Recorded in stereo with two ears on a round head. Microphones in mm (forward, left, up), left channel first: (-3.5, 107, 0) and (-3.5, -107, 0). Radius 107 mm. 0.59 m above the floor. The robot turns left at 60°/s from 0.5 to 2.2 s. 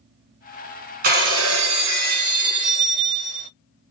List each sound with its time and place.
1.0 s breaking glass: 40° right, 1.3 m; by 3.5 s 110° right, 1.3 m